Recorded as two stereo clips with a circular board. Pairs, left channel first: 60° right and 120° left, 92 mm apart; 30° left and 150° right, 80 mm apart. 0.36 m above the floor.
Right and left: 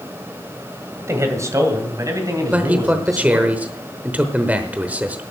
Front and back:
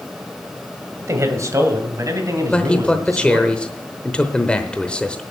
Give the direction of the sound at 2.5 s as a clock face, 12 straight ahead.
9 o'clock.